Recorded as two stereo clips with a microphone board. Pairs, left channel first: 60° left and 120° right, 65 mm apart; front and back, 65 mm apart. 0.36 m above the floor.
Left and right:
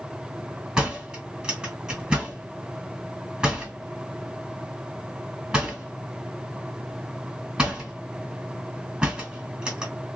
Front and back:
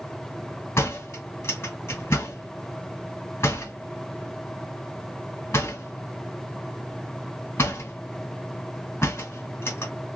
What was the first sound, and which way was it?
A door slam, 40° right.